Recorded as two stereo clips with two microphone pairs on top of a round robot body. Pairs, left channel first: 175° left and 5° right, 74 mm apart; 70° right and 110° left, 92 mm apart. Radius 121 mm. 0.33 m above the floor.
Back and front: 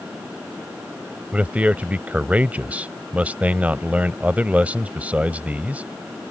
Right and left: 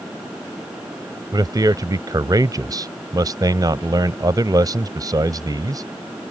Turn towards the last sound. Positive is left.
turn(degrees=70)